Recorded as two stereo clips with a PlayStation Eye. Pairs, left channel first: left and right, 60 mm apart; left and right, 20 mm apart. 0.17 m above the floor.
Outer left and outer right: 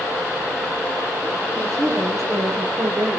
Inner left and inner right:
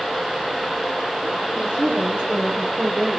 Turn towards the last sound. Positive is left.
turn(degrees=-60)  # may be behind; listen again after turning